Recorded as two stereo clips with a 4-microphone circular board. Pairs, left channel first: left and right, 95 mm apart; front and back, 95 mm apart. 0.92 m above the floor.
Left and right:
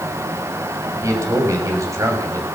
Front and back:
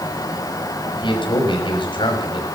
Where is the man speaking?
30° right, 6 m.